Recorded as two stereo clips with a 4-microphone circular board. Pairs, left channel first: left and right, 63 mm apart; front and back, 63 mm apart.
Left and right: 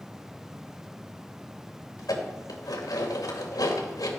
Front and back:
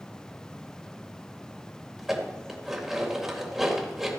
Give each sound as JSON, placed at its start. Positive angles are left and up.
{"t": 2.0, "sound": "dishes clattering", "azimuth_deg": 95, "distance_m": 2.5}